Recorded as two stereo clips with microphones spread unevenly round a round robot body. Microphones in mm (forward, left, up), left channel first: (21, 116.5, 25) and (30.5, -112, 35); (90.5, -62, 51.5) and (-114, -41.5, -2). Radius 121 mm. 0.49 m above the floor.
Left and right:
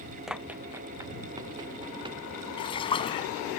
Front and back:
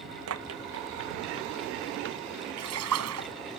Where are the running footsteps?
175° right; by 2.2 s 160° right.